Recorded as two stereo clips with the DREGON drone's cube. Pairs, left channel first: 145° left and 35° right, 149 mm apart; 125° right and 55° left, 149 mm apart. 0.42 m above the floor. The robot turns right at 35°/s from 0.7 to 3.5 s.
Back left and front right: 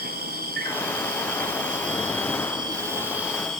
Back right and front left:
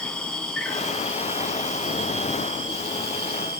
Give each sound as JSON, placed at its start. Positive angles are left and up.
{"t": 0.0, "sound": "an insect", "azimuth_deg": -40, "distance_m": 1.4}